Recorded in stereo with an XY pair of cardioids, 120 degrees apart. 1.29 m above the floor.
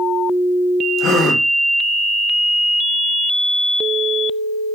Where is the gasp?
65° left, 0.9 m.